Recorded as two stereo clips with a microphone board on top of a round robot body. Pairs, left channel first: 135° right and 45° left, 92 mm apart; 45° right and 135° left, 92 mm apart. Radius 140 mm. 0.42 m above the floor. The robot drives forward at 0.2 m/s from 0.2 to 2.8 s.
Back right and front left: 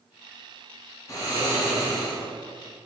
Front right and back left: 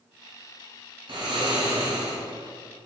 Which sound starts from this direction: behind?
Snoring, at 1.1 s.